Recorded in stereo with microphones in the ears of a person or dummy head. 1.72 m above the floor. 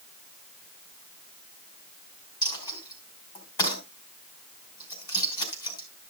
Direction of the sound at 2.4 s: 30° left (ahead or behind).